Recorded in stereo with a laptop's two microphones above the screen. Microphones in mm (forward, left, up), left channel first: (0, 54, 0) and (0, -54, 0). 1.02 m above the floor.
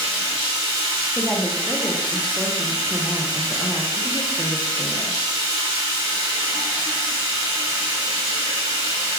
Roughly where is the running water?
Right.